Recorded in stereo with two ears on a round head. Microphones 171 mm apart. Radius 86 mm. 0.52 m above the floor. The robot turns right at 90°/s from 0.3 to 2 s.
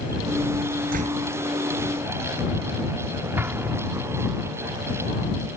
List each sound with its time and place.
0.9 s a door slam: 50° right; by 1.3 s 15° right
3.4 s an explosion: 10° right (ahead or behind)